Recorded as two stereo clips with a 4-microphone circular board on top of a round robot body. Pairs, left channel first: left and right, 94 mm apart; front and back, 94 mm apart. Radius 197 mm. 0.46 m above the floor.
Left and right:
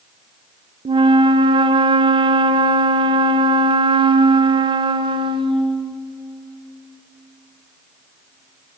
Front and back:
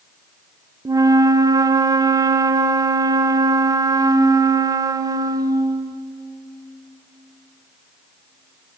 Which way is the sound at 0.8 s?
125° right.